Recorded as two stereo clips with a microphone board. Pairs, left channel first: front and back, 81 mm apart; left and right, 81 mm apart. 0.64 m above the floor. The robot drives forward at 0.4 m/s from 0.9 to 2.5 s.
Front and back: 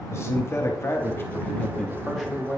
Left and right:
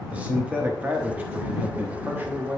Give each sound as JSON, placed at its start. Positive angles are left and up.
{"t": 0.1, "sound": "a man speaking", "azimuth_deg": -30, "distance_m": 0.9}